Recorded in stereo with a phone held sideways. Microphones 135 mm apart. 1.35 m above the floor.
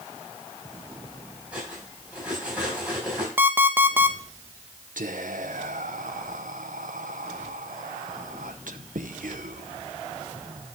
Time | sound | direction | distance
1.5 | cutlery clinking | 10° right (ahead or behind) | 5.5 m
3.4 | an alarm clock | 15° right (ahead or behind) | 0.6 m
5.0 | whispering | 80° right | 0.7 m